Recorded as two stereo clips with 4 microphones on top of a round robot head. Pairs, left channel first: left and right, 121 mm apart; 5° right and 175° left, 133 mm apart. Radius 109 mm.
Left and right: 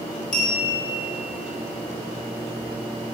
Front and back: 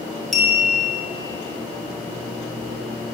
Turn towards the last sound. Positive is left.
turn(degrees=85)